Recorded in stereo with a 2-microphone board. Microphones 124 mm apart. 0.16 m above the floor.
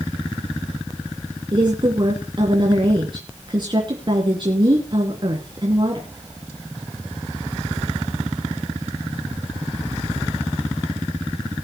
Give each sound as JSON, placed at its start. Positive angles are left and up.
{"t": 1.5, "sound": "a woman speaking", "side_deg": -40, "distance_m": 2.5}